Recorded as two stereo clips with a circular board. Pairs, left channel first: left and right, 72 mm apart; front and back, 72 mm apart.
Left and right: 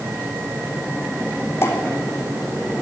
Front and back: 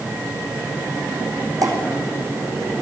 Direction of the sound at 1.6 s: 145° left.